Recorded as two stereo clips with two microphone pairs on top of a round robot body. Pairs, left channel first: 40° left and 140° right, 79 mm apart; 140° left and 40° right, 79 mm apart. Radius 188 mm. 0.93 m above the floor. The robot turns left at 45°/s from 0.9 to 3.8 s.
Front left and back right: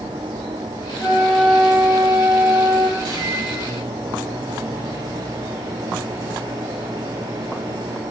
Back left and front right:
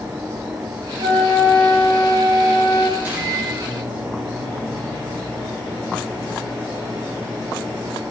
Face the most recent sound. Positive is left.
turn(degrees=-140)